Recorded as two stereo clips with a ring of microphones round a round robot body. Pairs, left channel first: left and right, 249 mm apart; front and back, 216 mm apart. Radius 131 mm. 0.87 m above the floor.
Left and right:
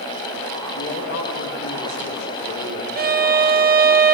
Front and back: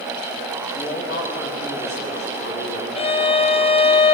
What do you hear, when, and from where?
0.8 s a man speaking: 40° left, 7 m
3.0 s a violin: 55° right, 1.2 m